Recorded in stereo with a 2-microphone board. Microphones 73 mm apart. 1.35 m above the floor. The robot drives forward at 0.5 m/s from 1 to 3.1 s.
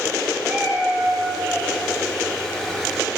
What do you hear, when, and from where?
0.4 s a cat meowing: 20° right (ahead or behind), 3 m